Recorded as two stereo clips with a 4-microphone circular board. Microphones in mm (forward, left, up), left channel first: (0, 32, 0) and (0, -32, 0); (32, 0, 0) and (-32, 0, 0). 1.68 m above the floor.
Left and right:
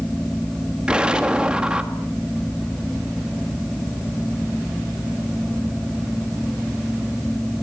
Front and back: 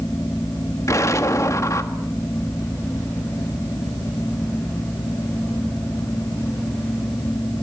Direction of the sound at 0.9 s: 20° right.